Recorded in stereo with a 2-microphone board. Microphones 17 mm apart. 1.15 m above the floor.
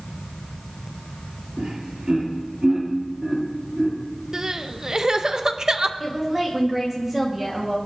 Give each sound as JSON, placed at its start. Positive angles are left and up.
{"t": 1.6, "sound": "laughter", "side_deg": -75, "distance_m": 3.5}
{"t": 4.3, "sound": "crying", "side_deg": -40, "distance_m": 0.6}
{"t": 6.0, "sound": "a woman speaking", "side_deg": -10, "distance_m": 1.9}